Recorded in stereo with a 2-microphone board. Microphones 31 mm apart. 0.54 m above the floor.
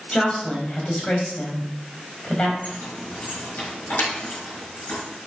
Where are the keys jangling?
70° left (ahead or behind), 4.5 m.